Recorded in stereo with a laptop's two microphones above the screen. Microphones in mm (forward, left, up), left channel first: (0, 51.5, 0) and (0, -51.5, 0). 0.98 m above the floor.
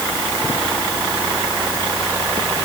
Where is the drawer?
I don't hear a drawer.